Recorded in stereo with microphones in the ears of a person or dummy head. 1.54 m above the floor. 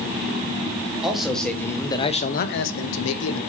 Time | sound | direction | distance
1.0 | a man speaking | 5° right (ahead or behind) | 1.8 m